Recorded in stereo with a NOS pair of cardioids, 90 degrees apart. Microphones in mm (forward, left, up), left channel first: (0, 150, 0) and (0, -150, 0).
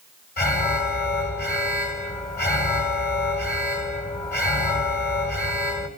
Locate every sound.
0.4 s an alarm: 30° left, 6 m